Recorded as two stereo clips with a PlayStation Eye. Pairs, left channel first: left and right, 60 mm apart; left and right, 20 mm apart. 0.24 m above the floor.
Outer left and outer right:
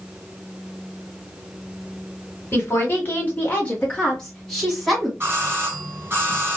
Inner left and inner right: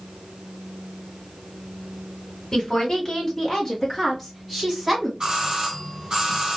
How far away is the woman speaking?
About 1.9 m.